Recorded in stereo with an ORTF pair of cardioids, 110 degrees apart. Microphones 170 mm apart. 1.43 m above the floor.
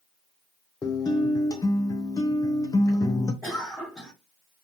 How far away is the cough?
About 2.5 m.